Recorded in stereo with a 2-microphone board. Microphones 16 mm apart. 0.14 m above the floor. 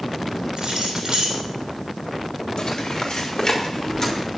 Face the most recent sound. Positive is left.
turn(degrees=30)  # may be behind; listen again after turning